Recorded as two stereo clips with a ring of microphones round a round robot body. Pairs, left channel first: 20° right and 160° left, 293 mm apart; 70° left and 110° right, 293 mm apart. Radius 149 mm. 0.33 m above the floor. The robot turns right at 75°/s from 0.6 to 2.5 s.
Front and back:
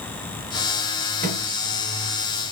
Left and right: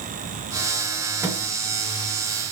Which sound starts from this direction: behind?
A microwave, at 1.2 s.